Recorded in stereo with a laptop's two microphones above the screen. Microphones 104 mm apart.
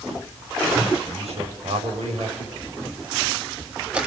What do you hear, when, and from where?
1.0 s a man speaking: 85° right, 5.5 m
2.6 s a camera shutter: 10° right (ahead or behind), 1.8 m